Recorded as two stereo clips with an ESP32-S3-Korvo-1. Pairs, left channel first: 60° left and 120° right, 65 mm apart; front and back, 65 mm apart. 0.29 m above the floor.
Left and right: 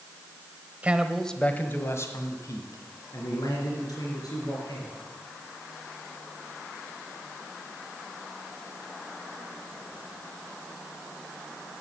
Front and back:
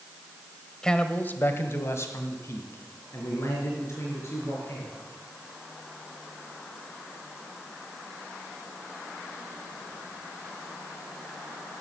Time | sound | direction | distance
0.8 | a man speaking | 75° right | 1.0 m